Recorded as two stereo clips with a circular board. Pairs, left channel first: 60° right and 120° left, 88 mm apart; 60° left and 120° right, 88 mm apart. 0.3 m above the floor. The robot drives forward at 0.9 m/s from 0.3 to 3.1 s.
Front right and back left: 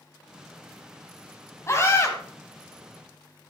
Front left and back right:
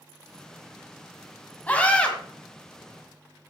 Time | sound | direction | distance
1.7 | a scream | 10° right | 2.5 m